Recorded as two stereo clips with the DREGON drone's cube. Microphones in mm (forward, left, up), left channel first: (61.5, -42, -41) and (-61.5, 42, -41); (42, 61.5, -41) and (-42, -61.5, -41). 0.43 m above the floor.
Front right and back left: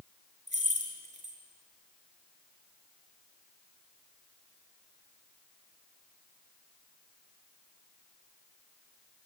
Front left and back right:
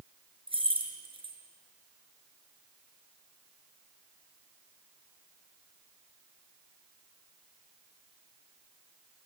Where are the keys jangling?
Straight behind, 4 m.